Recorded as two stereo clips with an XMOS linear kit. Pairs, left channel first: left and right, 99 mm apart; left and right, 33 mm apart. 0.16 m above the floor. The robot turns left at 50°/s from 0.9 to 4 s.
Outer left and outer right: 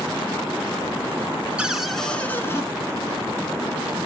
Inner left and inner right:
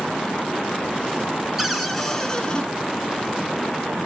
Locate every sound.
1.6 s a cupboard door: 165° right, 1.4 m; by 2.6 s 140° left, 1.4 m